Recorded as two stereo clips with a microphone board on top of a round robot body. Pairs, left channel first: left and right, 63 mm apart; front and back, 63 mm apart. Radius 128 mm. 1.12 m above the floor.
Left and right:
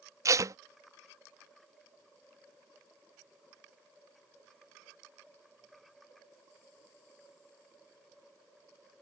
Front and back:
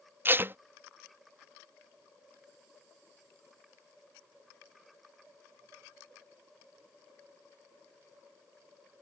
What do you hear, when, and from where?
0.2 s tape being pulled: 125° right